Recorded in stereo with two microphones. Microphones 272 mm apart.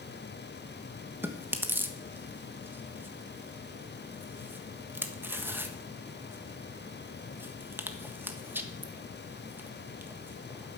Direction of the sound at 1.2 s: 10° right (ahead or behind).